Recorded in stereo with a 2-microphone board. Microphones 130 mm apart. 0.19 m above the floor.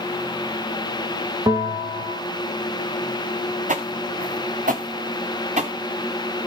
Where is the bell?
25° right (ahead or behind), 1.5 m.